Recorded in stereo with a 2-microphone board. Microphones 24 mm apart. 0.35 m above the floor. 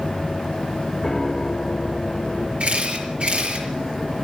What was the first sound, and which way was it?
A piano, 20° left (ahead or behind).